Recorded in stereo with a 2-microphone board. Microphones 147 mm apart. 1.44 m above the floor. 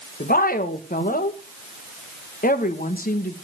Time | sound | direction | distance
0.2 | a woman speaking | 80° left | 1.6 m